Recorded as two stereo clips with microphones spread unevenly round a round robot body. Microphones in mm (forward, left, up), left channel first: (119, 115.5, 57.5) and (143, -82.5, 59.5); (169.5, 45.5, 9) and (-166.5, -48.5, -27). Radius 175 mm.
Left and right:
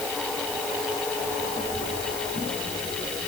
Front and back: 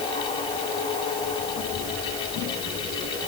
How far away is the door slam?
No door slam in this recording.